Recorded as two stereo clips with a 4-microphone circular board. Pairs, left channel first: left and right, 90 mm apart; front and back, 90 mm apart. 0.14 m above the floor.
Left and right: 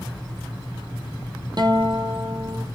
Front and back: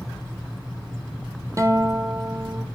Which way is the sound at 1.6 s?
125° right.